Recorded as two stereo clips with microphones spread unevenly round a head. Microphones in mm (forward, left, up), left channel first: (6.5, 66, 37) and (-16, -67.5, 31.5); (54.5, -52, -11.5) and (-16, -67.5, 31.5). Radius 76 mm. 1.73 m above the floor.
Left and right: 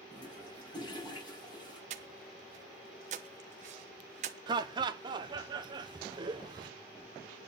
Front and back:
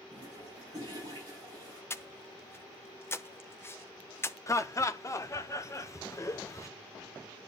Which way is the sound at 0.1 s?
140° left.